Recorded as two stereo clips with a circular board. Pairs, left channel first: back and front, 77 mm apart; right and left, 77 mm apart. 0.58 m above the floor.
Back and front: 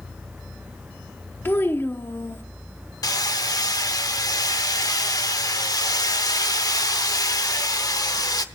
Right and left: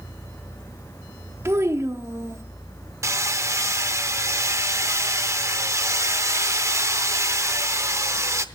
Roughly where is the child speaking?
Behind left.